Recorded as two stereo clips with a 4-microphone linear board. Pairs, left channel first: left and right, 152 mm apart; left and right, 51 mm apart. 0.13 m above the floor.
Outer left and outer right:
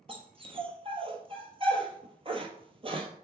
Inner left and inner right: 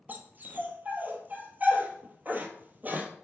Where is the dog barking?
40° right (ahead or behind), 1.1 m.